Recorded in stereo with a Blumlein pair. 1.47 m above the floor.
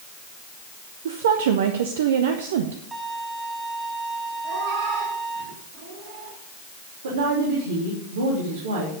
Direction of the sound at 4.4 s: 60° right.